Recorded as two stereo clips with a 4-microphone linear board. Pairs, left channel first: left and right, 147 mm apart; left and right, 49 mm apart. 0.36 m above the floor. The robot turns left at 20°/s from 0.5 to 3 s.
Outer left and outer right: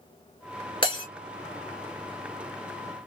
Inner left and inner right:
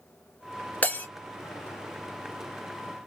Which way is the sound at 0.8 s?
35° left (ahead or behind).